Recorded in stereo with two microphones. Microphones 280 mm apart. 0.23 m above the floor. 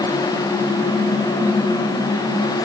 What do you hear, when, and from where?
Only background noise.